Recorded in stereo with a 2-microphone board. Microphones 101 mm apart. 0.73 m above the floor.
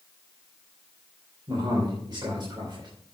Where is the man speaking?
50° right (ahead or behind), 3.5 m.